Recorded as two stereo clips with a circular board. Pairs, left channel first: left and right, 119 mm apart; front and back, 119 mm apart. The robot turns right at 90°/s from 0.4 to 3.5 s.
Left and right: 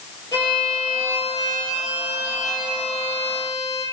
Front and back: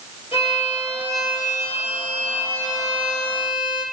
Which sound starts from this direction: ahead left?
A violin, at 0.3 s.